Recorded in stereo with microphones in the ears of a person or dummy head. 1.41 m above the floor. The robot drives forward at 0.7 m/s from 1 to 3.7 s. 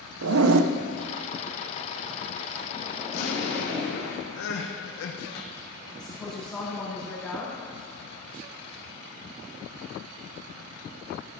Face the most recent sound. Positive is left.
turn(degrees=5)  # may be behind; listen again after turning